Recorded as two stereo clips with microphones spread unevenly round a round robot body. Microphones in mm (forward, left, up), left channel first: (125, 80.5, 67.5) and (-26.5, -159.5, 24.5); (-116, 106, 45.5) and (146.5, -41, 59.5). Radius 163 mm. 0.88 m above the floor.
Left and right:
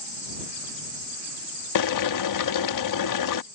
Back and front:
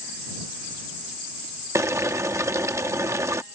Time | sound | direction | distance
1.8 | boiling | 50° left | ?